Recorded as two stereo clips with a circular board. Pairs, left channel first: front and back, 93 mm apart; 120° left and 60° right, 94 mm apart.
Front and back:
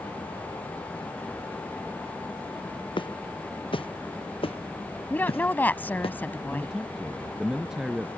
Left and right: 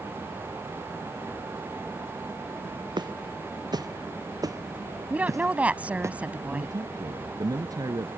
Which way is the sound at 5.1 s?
20° right.